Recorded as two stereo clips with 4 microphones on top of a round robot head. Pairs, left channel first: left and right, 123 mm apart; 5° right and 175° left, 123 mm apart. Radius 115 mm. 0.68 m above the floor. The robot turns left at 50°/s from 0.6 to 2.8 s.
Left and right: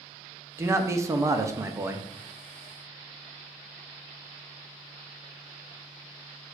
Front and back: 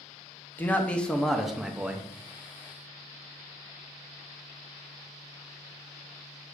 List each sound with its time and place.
0.6 s a man speaking: 60° right, 0.6 m; by 2.1 s 130° right, 0.6 m